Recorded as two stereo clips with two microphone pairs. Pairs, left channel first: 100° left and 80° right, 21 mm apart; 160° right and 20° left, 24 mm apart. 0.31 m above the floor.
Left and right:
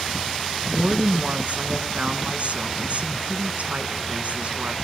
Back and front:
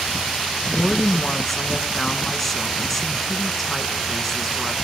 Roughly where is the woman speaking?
Right.